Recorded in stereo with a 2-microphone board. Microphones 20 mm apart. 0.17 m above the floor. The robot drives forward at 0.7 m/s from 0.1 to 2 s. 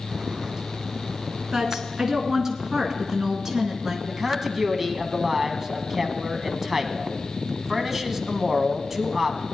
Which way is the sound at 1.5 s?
25° right (ahead or behind).